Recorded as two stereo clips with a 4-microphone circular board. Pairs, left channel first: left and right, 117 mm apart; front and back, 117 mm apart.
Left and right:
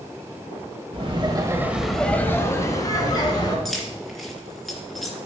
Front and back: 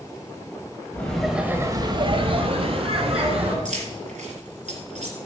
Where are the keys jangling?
Straight behind, 2.5 m.